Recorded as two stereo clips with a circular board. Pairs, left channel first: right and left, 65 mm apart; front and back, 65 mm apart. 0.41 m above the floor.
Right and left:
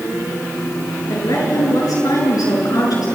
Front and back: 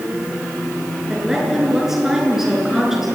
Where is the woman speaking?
95° right, 7 m.